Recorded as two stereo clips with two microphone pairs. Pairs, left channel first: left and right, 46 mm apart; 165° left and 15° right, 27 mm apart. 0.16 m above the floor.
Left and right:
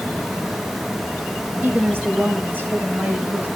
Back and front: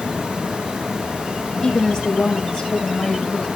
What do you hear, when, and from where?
1.6 s a woman speaking: 130° right, 5 m